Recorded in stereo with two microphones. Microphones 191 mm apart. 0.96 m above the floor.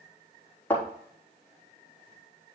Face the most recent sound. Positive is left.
turn(degrees=10)  # may be behind; listen again after turning